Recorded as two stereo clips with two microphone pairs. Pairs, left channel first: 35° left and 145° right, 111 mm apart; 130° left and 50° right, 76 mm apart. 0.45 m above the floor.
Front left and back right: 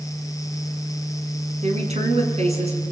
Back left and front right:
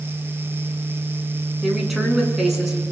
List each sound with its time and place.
1.6 s a woman speaking: 135° right, 5.5 m; by 2.8 s 130° right, 6 m